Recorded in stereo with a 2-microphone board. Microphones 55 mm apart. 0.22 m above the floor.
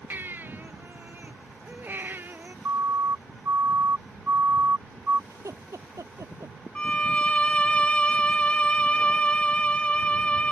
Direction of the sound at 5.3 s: 80° right.